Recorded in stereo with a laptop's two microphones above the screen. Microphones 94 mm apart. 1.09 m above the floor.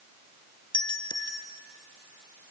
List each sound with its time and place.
0.7 s a doorbell: 50° left (ahead or behind), 1.7 m